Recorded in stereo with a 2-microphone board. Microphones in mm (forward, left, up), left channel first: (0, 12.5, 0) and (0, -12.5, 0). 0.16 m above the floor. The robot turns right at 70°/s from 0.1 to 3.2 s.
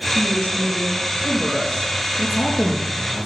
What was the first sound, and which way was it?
A woman speaking, 40° left.